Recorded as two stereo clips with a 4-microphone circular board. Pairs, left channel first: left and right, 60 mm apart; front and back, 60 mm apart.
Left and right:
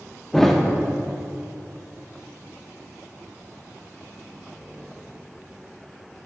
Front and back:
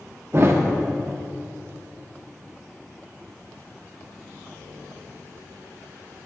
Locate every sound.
0.3 s a thud: 170° left, 0.7 m